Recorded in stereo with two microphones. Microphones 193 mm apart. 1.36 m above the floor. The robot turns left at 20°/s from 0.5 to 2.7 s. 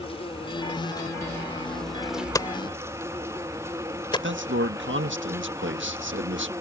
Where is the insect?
30° left; by 6.6 s 15° right.